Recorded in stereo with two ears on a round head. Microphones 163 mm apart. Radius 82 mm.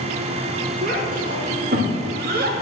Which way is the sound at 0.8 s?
50° right (ahead or behind).